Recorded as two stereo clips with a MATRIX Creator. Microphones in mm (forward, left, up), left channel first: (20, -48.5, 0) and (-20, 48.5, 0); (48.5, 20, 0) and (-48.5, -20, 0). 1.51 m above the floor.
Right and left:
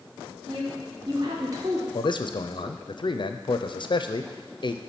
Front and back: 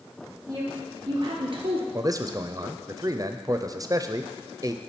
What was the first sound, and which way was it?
A woman speaking, 150° left.